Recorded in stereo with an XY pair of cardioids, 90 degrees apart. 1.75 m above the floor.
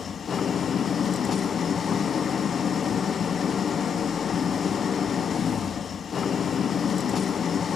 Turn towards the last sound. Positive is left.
turn(degrees=55)